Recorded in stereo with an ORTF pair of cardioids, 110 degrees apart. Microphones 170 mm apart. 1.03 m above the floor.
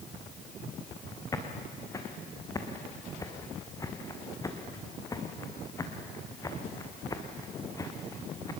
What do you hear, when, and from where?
1.3 s footsteps: 20° left, 3.5 m